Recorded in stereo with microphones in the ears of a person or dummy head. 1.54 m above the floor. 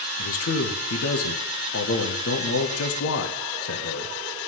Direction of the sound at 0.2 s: 70° left (ahead or behind).